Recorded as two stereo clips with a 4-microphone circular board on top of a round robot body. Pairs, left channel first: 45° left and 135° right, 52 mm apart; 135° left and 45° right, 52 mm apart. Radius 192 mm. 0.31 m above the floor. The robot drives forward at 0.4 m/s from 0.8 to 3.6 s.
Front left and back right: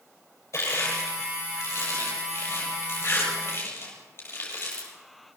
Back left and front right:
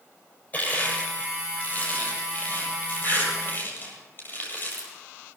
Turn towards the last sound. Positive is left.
turn(degrees=85)